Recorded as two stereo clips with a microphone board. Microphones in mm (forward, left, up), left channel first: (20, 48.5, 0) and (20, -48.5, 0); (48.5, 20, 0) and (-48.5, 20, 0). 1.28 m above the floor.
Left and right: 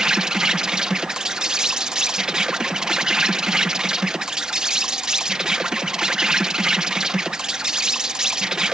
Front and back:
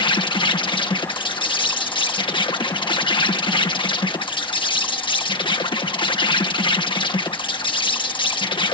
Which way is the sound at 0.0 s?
10° right.